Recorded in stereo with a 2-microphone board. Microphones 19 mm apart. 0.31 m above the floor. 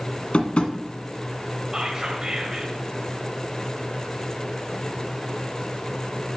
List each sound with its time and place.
0.3 s tapping: 70° left (ahead or behind), 1.1 m
1.7 s whispering: 35° right (ahead or behind), 1.5 m